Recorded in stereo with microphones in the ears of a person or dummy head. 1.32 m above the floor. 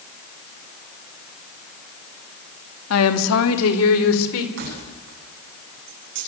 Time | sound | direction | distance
2.9 | a woman speaking | 85° left | 2 m
4.6 | keys jangling | 60° right (ahead or behind) | 9 m